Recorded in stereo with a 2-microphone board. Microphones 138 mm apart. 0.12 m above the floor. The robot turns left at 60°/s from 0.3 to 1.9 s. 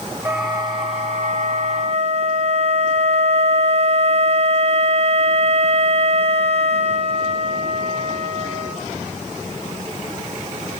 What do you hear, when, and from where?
0.2 s a flute: 15° right, 1.7 m; by 8.8 s 115° right, 1.7 m